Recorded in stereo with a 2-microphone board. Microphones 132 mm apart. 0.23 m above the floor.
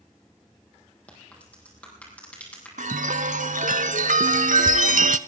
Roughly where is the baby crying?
No baby crying in this recording.